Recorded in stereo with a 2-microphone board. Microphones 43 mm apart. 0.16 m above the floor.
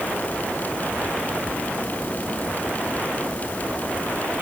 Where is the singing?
I don't hear singing.